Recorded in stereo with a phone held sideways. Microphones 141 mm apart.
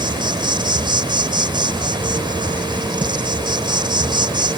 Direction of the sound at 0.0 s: 35° right (ahead or behind).